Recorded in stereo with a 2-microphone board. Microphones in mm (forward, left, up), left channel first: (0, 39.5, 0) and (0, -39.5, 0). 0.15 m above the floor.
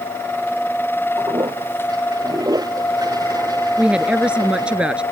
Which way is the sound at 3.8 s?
15° right (ahead or behind).